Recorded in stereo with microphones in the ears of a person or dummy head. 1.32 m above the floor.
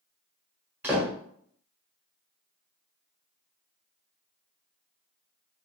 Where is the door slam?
15° right (ahead or behind), 0.8 m.